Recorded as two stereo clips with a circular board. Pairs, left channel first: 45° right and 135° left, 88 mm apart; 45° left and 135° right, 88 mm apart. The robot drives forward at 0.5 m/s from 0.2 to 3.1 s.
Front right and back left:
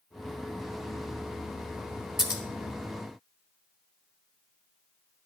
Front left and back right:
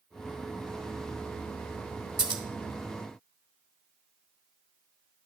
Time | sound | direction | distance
2.2 | scissors | 140° right | 1.2 m